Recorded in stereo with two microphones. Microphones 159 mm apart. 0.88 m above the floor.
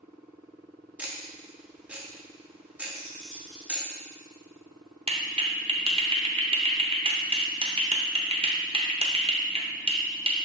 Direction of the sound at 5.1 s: 35° right (ahead or behind).